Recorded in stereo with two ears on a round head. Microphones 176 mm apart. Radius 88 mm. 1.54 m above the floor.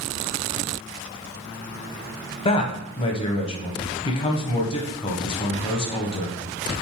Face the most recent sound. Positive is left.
turn(degrees=30)  # may be behind; listen again after turning